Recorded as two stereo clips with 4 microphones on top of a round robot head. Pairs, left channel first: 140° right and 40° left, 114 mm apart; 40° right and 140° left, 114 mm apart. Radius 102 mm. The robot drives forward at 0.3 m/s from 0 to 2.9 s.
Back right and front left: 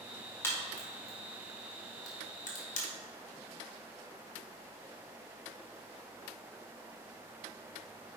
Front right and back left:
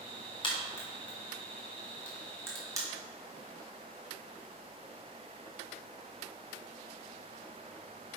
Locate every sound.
0.4 s a crack: 75° right, 0.6 m; by 2.9 s 155° right, 0.9 m